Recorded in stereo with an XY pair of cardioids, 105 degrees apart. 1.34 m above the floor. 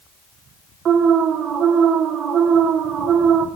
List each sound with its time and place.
0.8 s an alarm: 65° right, 1.5 m